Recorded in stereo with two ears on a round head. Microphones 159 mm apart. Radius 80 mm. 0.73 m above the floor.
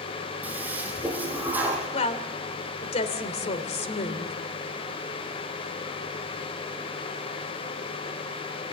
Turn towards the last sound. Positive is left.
turn(degrees=40)  # may be behind; listen again after turning